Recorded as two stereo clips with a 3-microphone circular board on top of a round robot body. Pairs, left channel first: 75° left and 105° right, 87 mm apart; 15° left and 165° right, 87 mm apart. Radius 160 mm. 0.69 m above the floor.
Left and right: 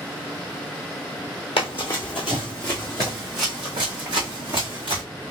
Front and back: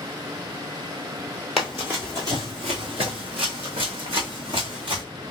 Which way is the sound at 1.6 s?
105° left.